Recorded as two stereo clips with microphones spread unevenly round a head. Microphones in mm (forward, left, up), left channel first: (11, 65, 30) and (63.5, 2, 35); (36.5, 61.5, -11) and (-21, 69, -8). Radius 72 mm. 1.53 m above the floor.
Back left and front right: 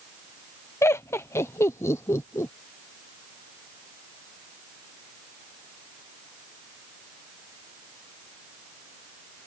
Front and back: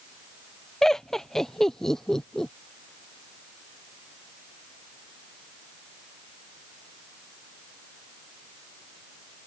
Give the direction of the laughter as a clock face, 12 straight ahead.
10 o'clock.